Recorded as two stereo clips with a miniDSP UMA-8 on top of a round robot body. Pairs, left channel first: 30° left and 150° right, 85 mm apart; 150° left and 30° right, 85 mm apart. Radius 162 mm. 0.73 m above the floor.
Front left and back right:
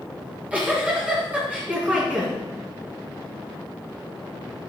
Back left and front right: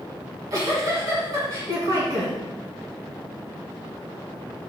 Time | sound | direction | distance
0.2 | a giggle | 75° right | 3 m